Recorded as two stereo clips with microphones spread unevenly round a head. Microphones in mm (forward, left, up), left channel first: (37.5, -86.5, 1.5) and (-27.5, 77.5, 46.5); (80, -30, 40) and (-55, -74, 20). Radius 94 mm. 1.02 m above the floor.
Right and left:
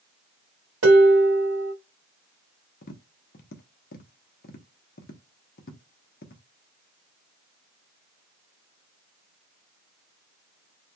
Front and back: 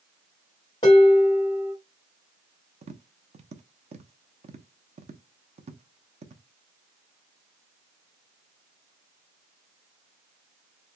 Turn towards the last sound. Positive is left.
turn(degrees=-115)